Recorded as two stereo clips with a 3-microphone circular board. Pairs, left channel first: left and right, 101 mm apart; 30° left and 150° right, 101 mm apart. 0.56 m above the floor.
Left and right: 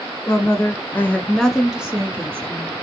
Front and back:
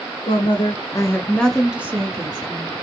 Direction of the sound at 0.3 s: 35° left.